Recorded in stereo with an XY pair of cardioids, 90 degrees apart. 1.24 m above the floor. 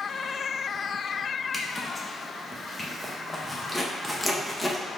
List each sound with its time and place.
1.5 s a zipper: 15° left, 0.8 m